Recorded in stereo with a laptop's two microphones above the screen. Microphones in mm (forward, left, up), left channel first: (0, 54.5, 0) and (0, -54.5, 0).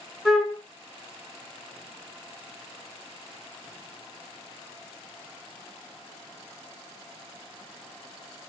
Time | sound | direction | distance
0.2 | a flute | 5° left (ahead or behind) | 1.3 m